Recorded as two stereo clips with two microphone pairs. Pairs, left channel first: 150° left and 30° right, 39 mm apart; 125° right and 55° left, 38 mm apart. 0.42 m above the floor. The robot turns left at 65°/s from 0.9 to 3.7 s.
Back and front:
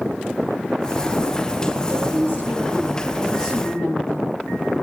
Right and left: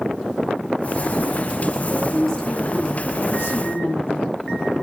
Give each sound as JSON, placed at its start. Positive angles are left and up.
{"t": 1.9, "sound": "a woman speaking", "azimuth_deg": -15, "distance_m": 9.0}